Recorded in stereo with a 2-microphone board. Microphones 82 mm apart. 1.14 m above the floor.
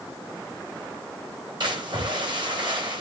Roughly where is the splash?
Right.